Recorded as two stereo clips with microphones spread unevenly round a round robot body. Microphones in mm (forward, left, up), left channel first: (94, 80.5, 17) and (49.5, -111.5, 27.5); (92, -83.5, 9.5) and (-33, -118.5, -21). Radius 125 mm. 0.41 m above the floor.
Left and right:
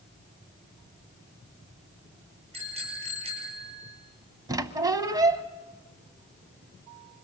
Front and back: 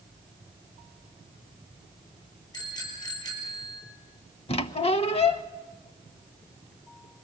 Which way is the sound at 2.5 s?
45° right.